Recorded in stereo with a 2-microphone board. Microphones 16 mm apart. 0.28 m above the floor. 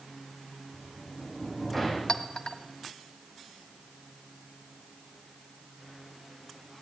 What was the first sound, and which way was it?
A sliding door, 15° left (ahead or behind).